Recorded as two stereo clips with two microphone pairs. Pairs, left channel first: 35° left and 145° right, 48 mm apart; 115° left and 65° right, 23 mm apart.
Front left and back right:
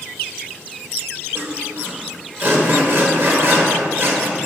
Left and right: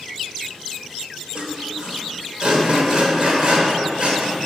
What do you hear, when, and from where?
1.4 s sawing: 115° right, 1.3 m